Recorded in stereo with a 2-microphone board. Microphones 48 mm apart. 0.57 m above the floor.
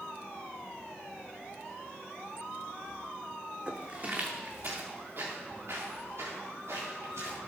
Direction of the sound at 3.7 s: 25° right (ahead or behind).